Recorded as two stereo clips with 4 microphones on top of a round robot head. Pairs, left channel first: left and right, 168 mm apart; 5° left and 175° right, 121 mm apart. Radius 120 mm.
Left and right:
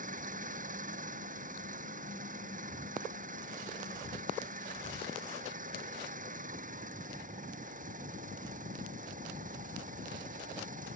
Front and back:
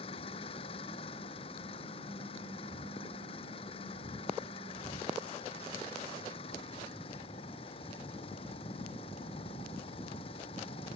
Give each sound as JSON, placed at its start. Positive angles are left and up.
{"t": 0.0, "sound": "an engine running", "azimuth_deg": -50}